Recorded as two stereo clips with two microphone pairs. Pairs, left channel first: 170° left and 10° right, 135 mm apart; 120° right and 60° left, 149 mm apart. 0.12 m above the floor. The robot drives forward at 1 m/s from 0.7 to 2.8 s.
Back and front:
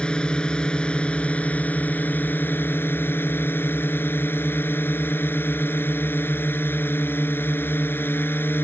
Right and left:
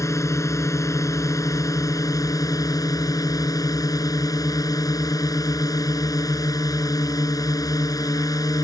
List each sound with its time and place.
0.0 s a drone: 120° right; by 8.7 s 140° right